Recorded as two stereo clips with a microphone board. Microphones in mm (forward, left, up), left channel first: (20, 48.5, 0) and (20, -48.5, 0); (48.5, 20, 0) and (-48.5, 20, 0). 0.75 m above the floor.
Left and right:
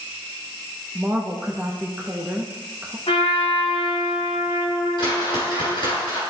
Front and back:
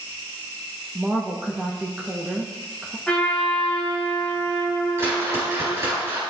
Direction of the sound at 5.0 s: 125° left.